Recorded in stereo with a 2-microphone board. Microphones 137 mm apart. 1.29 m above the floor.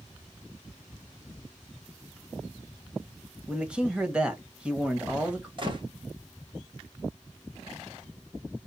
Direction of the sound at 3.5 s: 10° right (ahead or behind).